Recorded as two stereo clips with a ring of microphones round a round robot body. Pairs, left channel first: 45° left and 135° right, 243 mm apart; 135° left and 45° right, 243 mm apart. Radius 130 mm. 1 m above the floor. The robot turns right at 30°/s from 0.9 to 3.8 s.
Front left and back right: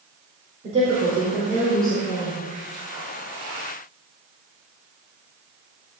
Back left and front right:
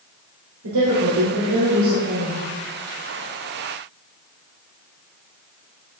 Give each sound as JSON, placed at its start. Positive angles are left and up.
{"t": 0.6, "sound": "a woman speaking", "azimuth_deg": -70, "distance_m": 4.5}